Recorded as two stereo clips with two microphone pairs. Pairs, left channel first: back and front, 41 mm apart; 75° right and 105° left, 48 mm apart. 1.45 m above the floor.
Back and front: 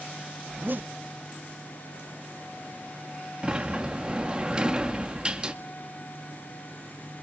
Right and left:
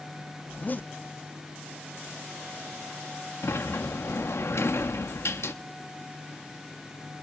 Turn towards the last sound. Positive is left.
turn(degrees=-65)